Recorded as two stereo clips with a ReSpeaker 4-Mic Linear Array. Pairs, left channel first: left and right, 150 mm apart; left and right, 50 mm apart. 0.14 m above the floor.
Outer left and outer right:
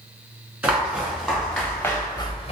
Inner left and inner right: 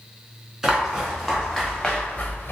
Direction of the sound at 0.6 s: 10° right (ahead or behind).